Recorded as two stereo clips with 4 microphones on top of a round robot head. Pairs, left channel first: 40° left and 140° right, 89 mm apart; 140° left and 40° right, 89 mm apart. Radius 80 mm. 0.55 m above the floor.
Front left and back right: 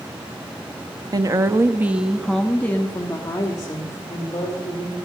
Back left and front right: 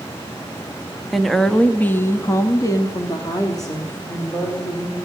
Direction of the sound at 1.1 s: 130° right.